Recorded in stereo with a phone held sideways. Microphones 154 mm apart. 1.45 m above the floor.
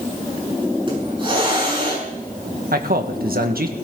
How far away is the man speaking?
About 1.8 m.